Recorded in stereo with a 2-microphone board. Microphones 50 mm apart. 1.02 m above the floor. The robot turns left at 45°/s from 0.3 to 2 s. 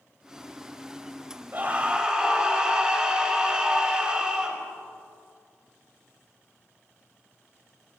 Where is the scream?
40° right (ahead or behind), 5.5 m; by 4.6 s 15° right (ahead or behind), 5.5 m.